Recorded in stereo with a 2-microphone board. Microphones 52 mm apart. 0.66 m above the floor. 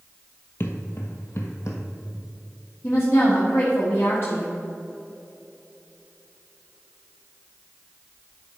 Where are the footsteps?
50° left (ahead or behind), 1.0 m; by 1.8 s 70° left (ahead or behind), 1.5 m.